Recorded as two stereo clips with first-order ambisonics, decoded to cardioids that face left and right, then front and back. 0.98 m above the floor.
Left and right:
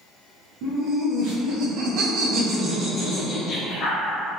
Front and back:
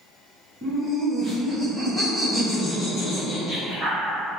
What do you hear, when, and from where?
0.6 s laughter: 100° right, 1.9 m; by 4.1 s 60° left, 1.1 m